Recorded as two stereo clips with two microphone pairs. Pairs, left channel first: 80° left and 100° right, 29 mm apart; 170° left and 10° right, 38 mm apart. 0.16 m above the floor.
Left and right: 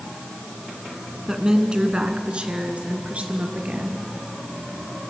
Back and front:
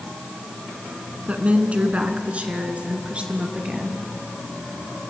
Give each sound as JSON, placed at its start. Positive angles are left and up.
{"t": 1.3, "sound": "a woman speaking", "azimuth_deg": -40, "distance_m": 1.8}